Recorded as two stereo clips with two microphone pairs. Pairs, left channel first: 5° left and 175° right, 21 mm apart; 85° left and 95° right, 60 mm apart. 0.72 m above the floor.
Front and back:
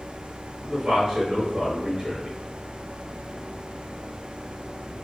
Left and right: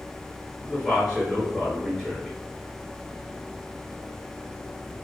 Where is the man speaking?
160° left, 1.3 m.